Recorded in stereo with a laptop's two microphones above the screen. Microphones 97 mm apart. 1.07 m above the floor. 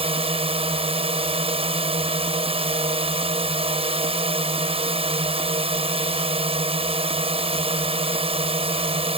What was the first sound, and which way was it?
A drone, 80° right.